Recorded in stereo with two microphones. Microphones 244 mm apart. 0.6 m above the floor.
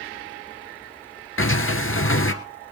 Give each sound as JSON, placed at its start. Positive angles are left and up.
{"t": 1.4, "sound": "a sliding door", "side_deg": 60, "distance_m": 1.9}